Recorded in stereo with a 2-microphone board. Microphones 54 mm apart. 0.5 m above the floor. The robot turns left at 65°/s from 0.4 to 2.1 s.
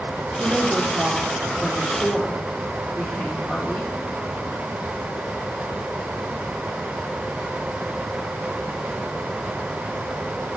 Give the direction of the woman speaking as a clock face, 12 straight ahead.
4 o'clock.